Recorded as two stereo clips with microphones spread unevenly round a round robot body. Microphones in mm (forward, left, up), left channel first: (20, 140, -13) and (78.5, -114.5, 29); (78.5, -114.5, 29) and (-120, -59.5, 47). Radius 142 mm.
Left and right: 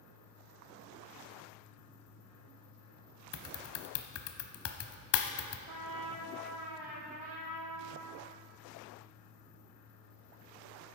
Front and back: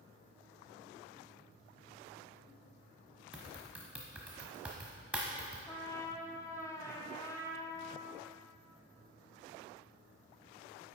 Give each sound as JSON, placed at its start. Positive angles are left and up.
{"t": 3.3, "sound": "typing on a keyboard", "azimuth_deg": 80, "distance_m": 0.9}
{"t": 5.7, "sound": "a trumpet", "azimuth_deg": -90, "distance_m": 2.0}